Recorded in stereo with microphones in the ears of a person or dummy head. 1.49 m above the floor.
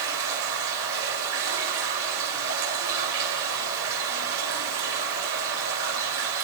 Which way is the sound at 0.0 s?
75° right (ahead or behind).